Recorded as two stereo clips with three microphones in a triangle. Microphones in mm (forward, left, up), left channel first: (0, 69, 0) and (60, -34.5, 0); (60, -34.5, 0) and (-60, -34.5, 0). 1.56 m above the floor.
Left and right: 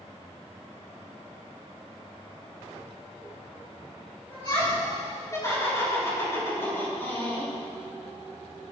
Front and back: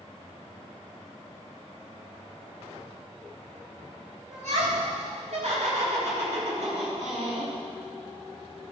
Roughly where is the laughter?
Behind.